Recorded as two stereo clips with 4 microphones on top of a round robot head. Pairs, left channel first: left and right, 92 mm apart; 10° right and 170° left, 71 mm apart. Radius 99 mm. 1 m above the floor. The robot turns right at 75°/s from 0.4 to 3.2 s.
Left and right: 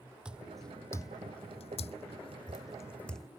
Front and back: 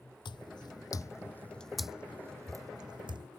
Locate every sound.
0.2 s footsteps: 10° right; by 3.3 s 175° left